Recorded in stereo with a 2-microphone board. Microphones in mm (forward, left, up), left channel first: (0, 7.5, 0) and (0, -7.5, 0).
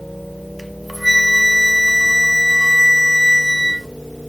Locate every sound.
0.6 s a flute: 5° left (ahead or behind), 0.7 m